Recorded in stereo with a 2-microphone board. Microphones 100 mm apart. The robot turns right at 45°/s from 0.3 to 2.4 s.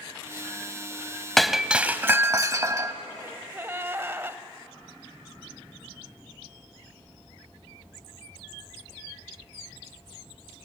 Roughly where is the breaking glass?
Behind.